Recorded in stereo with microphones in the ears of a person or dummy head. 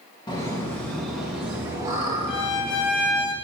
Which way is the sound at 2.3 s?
65° left (ahead or behind).